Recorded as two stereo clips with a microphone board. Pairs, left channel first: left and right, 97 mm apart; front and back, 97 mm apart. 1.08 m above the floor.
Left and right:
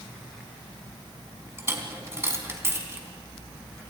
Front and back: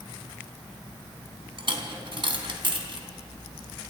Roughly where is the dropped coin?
Behind right.